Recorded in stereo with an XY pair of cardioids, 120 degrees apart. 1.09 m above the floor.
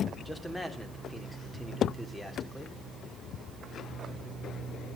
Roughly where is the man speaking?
Ahead.